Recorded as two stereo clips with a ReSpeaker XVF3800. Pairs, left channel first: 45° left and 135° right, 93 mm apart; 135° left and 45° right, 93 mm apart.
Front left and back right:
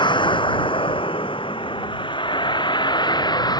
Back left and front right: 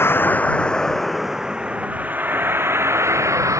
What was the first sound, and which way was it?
A vehicle, 70° left.